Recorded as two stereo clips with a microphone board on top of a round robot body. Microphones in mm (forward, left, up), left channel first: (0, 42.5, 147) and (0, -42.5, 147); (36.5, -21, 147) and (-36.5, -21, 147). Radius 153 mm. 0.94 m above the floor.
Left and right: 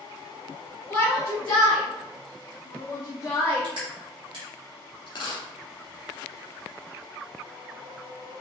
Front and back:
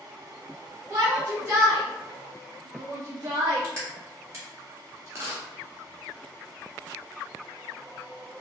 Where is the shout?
120° left, 1.9 m; by 3.7 s 160° left, 0.7 m.